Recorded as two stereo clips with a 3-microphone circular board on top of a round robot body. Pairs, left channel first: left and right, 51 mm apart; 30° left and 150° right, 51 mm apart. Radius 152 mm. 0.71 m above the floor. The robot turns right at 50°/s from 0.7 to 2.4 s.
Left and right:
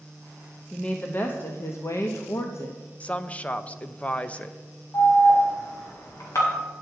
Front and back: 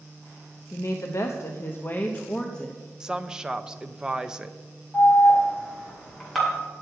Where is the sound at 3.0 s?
140° left, 0.7 m.